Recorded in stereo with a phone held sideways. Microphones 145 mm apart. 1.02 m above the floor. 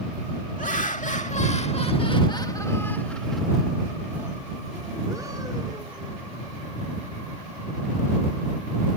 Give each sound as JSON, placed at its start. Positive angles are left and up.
{"t": 0.6, "sound": "laughter", "side_deg": 70}